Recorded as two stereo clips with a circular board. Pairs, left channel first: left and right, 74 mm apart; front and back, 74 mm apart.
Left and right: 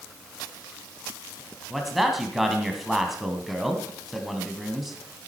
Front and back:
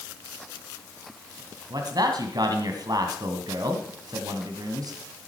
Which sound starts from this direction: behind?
A man speaking, at 1.7 s.